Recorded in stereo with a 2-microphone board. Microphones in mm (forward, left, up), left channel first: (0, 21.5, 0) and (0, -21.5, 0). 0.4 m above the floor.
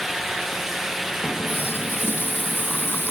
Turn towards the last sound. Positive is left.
turn(degrees=60)  # may be behind; listen again after turning